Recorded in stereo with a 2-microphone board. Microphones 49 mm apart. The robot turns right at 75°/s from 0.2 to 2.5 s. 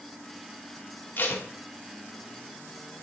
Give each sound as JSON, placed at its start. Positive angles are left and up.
{"t": 1.2, "sound": "tape being pulled", "side_deg": 40, "distance_m": 0.8}